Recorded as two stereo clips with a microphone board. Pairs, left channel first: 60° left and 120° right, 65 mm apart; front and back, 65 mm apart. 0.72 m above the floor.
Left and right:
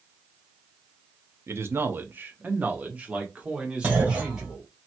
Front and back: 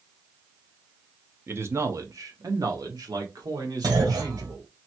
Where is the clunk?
170° left, 2 m.